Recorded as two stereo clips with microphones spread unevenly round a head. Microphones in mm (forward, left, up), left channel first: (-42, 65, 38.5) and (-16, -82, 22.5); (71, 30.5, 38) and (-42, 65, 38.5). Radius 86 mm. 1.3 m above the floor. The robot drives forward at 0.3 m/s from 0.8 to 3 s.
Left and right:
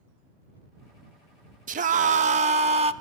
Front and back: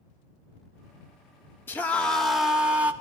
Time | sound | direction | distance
1.7 | a scream | 90° right | 0.7 m